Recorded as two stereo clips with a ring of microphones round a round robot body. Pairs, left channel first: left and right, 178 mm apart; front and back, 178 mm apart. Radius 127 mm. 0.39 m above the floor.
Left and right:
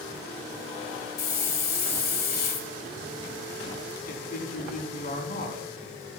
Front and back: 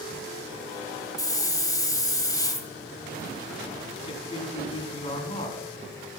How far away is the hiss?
About 1.6 m.